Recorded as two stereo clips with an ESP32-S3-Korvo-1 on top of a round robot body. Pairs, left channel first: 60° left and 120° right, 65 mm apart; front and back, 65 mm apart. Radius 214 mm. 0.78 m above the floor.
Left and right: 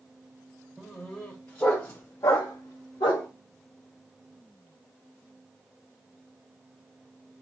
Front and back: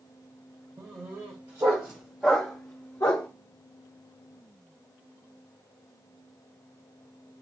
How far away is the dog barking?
About 1.4 m.